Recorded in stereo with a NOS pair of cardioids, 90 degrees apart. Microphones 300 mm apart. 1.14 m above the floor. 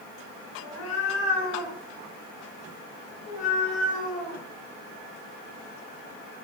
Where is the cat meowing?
60° left, 4 m; by 4.4 s 35° left, 5 m.